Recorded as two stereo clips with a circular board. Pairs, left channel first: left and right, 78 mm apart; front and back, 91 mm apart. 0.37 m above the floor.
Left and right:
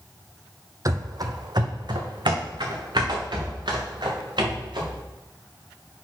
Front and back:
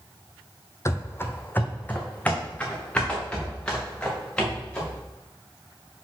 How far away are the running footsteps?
About 0.6 m.